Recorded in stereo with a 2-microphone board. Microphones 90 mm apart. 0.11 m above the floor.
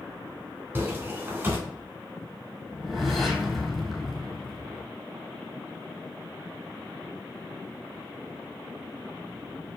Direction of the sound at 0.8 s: 25° right (ahead or behind).